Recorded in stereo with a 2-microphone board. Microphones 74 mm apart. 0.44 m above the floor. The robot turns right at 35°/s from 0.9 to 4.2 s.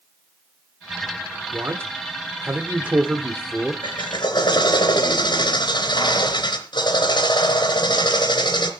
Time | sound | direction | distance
1.5 | a man speaking | 80° right | 1.2 m
3.8 | a drill | 85° left | 2.5 m